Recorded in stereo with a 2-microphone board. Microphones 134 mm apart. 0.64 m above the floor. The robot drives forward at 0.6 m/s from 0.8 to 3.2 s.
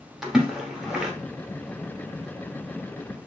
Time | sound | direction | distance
0.2 | a splash | 5° right (ahead or behind) | 1.1 m